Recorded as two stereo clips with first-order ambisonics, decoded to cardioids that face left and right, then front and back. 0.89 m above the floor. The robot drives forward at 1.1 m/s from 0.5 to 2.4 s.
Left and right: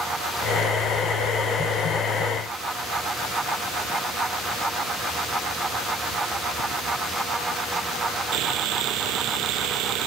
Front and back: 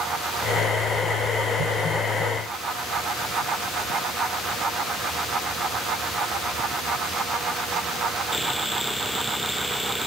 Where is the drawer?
I don't hear a drawer.